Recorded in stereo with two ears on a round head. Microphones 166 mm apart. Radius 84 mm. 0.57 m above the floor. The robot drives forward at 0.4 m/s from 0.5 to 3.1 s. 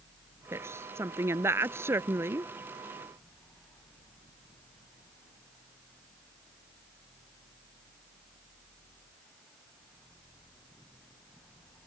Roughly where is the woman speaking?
Centre.